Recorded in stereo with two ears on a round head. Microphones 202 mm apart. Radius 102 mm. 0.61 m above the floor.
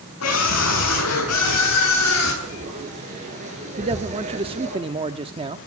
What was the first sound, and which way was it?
A scream, 70° left (ahead or behind).